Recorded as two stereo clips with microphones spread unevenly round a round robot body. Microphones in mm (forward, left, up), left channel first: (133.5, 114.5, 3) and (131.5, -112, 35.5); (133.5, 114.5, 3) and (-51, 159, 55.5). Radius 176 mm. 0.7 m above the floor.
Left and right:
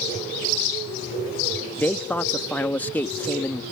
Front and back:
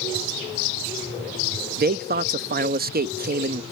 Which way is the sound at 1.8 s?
155° left.